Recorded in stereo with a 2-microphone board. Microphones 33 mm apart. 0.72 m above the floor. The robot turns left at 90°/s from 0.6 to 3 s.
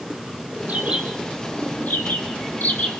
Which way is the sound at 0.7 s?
50° right (ahead or behind).